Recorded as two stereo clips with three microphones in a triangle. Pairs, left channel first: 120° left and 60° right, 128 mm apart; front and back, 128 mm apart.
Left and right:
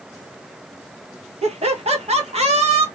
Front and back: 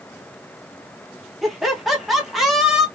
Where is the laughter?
90° right, 1.1 m.